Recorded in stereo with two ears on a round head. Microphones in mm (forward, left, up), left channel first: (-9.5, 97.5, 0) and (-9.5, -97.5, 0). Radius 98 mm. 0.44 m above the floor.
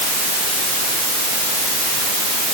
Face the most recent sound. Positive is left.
No sound to turn to.